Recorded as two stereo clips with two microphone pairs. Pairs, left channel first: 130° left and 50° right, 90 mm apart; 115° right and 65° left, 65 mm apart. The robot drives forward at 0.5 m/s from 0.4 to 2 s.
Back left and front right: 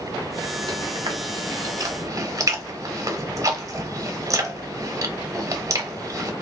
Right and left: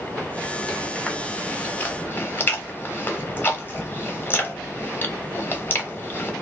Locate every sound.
0.7 s chewing: 40° right, 1.3 m; by 6.3 s 75° right, 1.0 m